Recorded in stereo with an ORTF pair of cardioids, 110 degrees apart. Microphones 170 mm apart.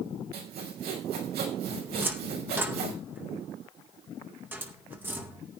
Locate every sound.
0.3 s sawing: 70° right, 6 m
1.9 s a cupboard door: 10° right, 2.5 m